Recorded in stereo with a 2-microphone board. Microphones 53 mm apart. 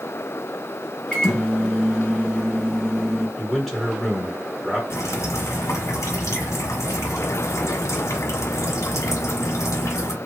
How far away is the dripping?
About 1.2 m.